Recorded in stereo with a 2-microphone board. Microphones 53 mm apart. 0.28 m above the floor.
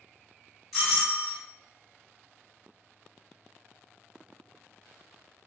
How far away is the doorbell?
About 1.4 m.